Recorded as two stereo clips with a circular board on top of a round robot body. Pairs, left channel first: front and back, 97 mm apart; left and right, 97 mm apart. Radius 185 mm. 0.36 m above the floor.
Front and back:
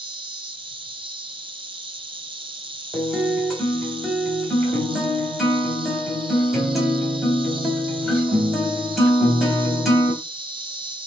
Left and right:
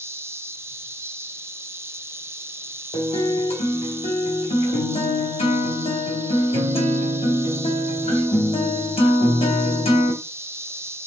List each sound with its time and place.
0.0 s an insect: 150° right, 1.5 m
2.9 s a guitar: 90° left, 3.5 m